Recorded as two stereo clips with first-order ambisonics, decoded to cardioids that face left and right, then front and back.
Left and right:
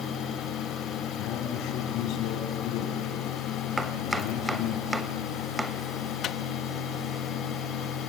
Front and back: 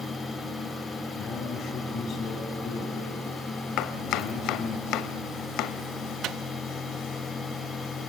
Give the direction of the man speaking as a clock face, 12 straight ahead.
10 o'clock.